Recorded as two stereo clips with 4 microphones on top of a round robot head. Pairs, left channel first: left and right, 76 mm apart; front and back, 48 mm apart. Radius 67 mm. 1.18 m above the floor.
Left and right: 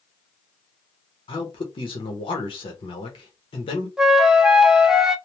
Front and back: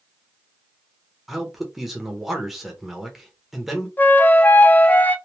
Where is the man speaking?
90° left, 1.0 m.